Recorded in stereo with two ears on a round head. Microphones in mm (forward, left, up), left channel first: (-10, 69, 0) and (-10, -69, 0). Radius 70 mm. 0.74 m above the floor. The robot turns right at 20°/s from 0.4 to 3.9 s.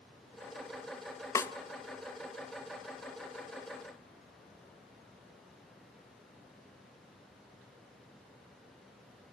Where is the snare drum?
20° left (ahead or behind), 0.8 m; by 1.5 s 15° left (ahead or behind), 0.8 m.